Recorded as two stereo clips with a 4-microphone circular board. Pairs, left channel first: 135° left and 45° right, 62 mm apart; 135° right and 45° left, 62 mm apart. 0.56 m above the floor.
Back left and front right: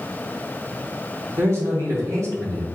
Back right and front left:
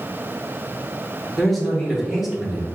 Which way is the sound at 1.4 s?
50° right.